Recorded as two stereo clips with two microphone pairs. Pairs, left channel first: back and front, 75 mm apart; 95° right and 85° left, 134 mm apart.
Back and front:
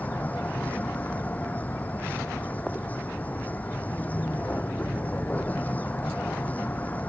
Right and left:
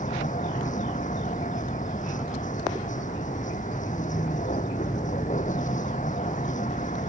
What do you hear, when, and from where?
0.0 s a vehicle: 115° right